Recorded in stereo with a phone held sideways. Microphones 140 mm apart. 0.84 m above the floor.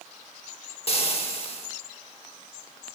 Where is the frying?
45° left (ahead or behind), 0.7 m.